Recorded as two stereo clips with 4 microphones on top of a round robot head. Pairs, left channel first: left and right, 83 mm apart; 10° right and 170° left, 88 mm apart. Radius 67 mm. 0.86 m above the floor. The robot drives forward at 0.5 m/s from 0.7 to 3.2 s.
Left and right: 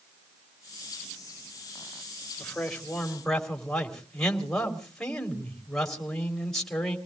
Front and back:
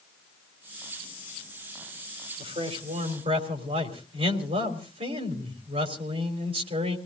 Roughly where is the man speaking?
Behind.